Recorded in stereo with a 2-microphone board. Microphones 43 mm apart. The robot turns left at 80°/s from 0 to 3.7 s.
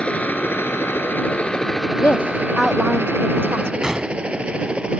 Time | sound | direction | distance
0.0 | a helicopter | 25° left (ahead or behind) | ?
2.0 | a woman speaking | 55° left (ahead or behind) | ?
3.8 | a gunshot | 15° right (ahead or behind) | ?